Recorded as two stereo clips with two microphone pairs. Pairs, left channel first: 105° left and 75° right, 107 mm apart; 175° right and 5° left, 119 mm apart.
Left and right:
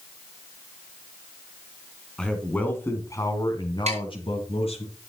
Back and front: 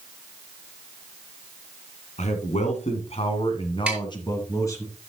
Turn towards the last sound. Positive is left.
turn(degrees=-75)